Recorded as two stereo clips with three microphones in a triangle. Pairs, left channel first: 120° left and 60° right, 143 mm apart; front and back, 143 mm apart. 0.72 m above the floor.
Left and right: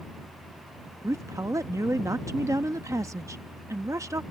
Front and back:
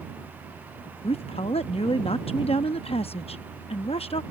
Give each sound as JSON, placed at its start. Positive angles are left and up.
{"t": 1.0, "sound": "a woman speaking", "azimuth_deg": 0}